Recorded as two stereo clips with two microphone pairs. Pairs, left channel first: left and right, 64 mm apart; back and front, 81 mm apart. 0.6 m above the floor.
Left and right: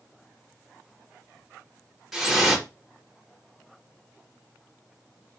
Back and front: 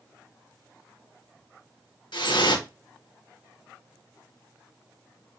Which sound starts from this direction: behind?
Dripping, at 2.1 s.